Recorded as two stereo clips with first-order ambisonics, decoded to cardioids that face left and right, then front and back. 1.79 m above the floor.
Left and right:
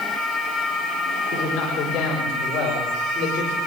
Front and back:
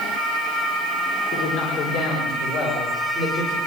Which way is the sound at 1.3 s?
30° left.